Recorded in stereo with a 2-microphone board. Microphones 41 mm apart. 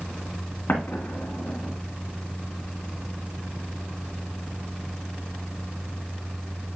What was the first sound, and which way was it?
An explosion, 50° left (ahead or behind).